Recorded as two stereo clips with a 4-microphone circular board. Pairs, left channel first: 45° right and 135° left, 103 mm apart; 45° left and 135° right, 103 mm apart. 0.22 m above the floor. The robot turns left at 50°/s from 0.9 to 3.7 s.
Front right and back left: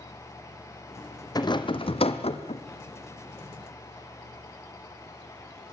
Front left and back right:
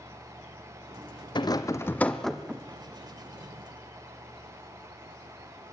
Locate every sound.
1.4 s a rattle: 5° left, 1.7 m; by 2.6 s 60° right, 1.7 m